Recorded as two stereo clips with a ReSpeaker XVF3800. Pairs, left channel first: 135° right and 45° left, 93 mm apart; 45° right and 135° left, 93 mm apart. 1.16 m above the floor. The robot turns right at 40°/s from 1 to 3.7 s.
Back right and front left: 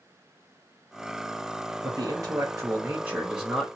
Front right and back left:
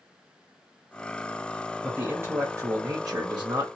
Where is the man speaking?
65° left, 0.7 m; by 3.7 s 135° left, 0.7 m.